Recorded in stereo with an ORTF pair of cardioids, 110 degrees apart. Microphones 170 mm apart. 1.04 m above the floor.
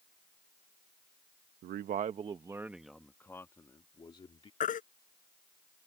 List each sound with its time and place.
1.6 s a man speaking: 65° right; by 4.5 s 30° left
4.6 s a baby crying: 45° left